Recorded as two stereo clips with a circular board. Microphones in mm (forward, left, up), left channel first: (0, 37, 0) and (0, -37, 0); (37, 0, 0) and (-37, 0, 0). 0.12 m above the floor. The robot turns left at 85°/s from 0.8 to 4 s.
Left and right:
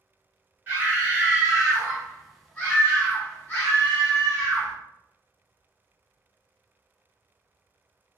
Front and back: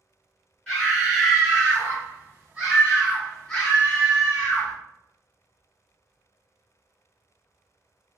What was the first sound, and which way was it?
A scream, 70° right.